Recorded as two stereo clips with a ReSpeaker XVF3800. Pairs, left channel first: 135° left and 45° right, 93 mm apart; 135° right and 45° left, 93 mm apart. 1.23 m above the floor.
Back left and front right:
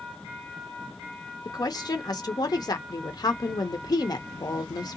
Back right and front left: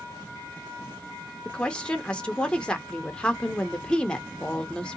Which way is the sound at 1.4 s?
150° left.